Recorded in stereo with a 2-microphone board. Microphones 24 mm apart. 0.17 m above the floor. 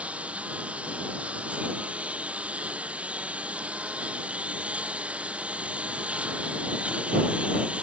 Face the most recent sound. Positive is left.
turn(degrees=-65)  # may be behind; listen again after turning